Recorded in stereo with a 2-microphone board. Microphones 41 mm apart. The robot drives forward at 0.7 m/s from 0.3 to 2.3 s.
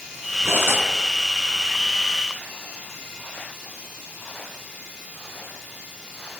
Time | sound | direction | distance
0.4 | cutlery clinking | 75° right (ahead or behind) | 6.5 m